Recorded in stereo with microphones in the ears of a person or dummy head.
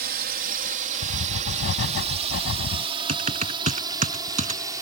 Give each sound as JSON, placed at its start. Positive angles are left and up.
{"t": 0.0, "sound": "a drone", "side_deg": -55}
{"t": 1.0, "sound": "writing", "side_deg": 70}
{"t": 3.1, "sound": "typing on a keyboard", "side_deg": -35}